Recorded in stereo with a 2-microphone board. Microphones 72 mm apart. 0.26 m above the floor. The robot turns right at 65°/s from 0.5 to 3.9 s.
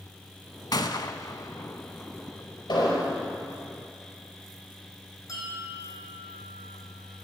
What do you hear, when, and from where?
0.7 s a gunshot: 70° left (ahead or behind), 0.6 m; by 2.4 s 5° right (ahead or behind), 0.6 m
2.7 s an explosion: 75° left (ahead or behind), 4.5 m; by 3.1 s 60° left (ahead or behind), 4.5 m
5.3 s a bell: 55° left (ahead or behind), 2.5 m